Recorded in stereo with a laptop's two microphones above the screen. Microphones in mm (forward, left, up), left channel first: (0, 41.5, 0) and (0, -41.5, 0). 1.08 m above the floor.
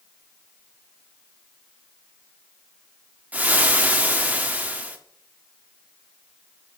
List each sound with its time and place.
3.3 s frying: 20° right (ahead or behind), 0.8 m